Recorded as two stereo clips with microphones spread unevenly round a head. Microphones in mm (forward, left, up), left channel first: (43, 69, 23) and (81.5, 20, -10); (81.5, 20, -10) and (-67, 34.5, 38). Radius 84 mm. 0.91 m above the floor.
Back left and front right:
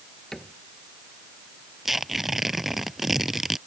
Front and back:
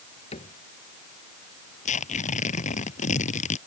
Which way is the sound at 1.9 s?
40° left.